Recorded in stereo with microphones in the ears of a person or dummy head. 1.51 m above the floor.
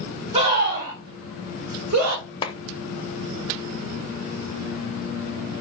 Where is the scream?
30° right (ahead or behind), 2 m; by 2.2 s 65° right (ahead or behind), 2.0 m.